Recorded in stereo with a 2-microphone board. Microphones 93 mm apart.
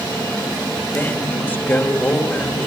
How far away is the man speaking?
About 1.9 m.